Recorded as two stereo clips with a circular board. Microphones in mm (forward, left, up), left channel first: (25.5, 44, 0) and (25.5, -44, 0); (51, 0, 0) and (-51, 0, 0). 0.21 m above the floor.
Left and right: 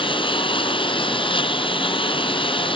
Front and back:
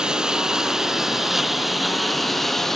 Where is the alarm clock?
I don't hear an alarm clock.